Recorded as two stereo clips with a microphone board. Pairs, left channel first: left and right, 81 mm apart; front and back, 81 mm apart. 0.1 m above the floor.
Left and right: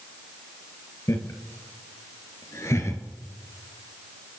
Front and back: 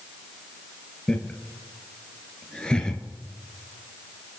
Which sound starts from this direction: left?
Laughter, at 1.1 s.